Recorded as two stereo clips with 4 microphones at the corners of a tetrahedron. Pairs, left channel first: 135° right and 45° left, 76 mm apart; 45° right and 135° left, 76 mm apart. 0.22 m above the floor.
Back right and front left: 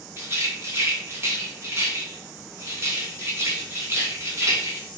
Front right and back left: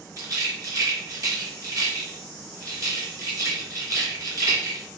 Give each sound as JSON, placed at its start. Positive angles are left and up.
{"t": 0.2, "sound": "a rattle", "azimuth_deg": 95, "distance_m": 3.0}